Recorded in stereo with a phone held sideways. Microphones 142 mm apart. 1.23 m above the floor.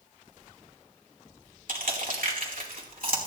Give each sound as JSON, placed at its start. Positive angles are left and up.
{"t": 1.7, "sound": "crushing", "side_deg": -75, "distance_m": 2.5}